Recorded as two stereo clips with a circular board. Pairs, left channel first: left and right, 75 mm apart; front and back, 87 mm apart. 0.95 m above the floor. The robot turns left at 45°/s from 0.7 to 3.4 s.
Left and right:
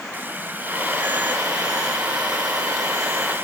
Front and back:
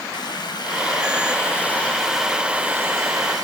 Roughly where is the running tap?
Ahead right.